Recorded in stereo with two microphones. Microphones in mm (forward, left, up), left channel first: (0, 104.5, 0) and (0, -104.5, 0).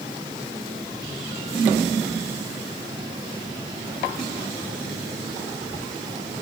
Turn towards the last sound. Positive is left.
No sound to turn to.